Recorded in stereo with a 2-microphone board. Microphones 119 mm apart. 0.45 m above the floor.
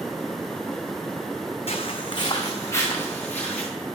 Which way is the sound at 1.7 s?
55° left (ahead or behind).